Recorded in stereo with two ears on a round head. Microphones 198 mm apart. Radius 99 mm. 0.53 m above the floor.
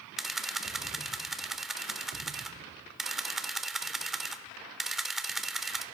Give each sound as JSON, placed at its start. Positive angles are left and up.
{"t": 0.2, "sound": "a camera shutter", "side_deg": 0, "distance_m": 0.5}